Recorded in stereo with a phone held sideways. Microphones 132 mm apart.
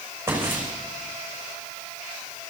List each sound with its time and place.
0.3 s footsteps: 15° right (ahead or behind), 6 m